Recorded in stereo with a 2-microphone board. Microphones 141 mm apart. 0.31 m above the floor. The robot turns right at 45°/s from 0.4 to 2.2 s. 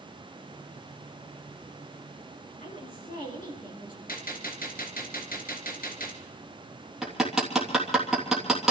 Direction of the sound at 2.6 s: 70° left (ahead or behind).